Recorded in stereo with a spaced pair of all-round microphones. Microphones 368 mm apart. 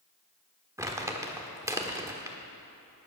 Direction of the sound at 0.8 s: 10° right (ahead or behind).